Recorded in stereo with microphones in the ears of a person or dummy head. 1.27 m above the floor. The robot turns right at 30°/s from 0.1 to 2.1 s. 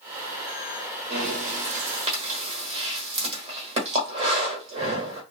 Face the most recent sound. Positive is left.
turn(degrees=-35)  # may be behind; listen again after turning